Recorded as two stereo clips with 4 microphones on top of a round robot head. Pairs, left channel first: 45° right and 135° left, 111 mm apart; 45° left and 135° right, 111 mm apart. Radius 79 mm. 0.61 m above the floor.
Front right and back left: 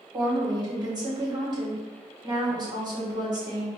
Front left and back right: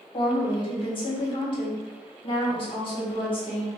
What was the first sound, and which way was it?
A woman speaking, 85° left.